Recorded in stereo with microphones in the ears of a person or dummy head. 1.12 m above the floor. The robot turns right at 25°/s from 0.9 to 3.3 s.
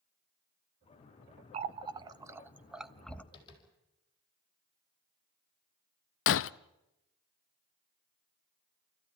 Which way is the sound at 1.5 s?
35° right (ahead or behind).